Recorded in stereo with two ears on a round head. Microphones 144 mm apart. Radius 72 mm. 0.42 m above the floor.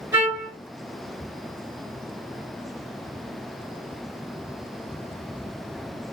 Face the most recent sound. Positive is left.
turn(degrees=-15)  # may be behind; listen again after turning